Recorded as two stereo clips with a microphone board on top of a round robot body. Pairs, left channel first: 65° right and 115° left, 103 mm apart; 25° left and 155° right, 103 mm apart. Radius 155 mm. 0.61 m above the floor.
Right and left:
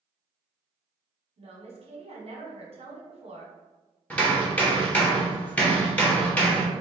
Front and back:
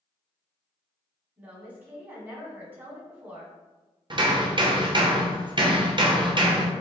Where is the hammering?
140° right, 1.1 m.